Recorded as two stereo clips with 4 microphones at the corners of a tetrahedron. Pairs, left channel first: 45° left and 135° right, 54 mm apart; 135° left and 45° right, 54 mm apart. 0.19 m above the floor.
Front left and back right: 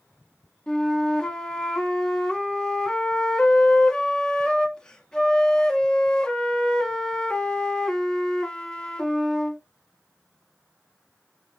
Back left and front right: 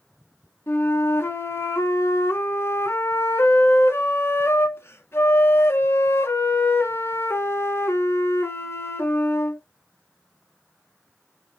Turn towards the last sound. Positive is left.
turn(degrees=120)